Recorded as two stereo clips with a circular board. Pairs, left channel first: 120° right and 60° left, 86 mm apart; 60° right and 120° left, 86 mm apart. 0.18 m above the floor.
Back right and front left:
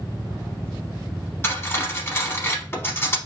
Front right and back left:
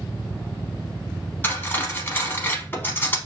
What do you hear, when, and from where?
1.4 s cutlery clinking: 100° right, 0.7 m